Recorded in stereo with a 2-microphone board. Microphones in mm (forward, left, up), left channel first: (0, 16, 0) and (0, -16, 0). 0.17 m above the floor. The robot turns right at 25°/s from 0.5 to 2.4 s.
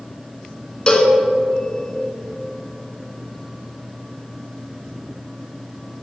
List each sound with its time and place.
0.9 s a cowbell: 30° left (ahead or behind), 0.8 m; by 1.2 s 35° left (ahead or behind), 0.8 m